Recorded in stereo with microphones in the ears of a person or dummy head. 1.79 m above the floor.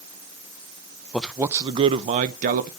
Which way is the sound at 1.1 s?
5° left (ahead or behind).